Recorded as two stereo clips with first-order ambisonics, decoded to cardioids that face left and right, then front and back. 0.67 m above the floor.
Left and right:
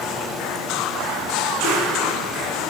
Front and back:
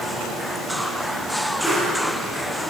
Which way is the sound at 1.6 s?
80° left.